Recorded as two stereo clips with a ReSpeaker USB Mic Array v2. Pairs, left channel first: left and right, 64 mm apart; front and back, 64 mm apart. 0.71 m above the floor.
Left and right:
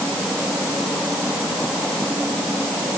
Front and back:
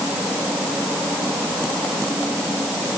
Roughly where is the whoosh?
No whoosh in this recording.